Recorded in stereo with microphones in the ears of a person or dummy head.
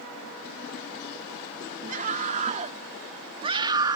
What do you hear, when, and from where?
1.9 s a scream: 45° right (ahead or behind); by 4.0 s 20° right (ahead or behind)